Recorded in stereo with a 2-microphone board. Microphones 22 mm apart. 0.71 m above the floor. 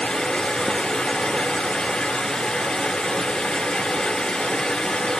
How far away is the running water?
About 1.8 m.